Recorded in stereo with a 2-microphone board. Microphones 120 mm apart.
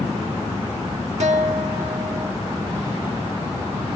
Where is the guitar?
75° right (ahead or behind), 0.9 m.